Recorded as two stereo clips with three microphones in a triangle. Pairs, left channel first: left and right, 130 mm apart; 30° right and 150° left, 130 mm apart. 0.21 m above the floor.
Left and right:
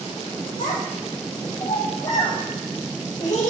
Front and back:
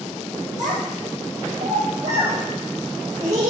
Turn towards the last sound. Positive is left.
turn(degrees=115)